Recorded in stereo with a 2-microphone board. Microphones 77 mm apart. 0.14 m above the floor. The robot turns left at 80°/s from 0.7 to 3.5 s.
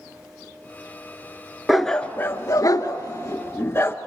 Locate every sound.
1.7 s a dog barking: 5° right (ahead or behind), 0.7 m; by 4.0 s 35° left (ahead or behind), 0.7 m